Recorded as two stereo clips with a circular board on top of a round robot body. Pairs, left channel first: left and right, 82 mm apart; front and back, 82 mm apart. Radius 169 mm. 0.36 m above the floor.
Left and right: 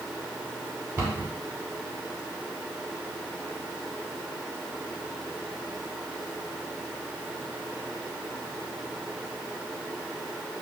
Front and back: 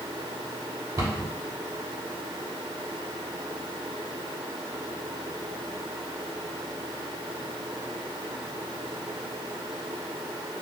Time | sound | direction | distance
1.0 | a cupboard door | 155° right | 2.0 m